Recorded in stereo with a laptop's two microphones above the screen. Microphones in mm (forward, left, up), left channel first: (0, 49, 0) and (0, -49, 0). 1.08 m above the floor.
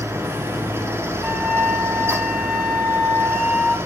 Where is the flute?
5° right (ahead or behind), 1.6 m.